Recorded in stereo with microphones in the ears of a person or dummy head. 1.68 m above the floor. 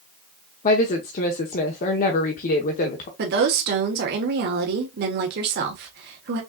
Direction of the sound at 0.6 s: 45° left (ahead or behind).